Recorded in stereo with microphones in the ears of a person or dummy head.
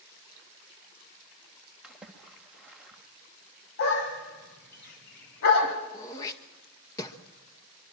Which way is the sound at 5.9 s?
15° left (ahead or behind).